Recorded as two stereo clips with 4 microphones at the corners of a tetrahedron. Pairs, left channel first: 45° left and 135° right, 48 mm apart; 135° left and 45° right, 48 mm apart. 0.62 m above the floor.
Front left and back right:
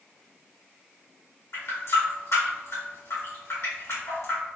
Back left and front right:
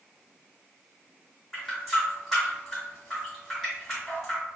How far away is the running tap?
About 1.6 m.